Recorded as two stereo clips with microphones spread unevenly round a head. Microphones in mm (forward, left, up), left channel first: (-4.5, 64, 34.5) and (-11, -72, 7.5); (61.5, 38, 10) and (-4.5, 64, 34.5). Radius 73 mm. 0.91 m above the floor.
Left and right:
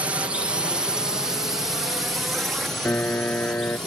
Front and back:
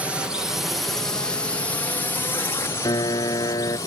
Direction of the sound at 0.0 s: 105° right.